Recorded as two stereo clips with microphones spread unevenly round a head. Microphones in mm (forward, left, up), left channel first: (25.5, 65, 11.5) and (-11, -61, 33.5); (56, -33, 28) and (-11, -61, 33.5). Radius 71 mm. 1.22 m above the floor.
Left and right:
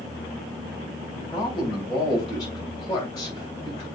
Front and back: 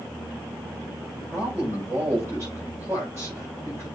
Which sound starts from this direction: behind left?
A man speaking, at 1.1 s.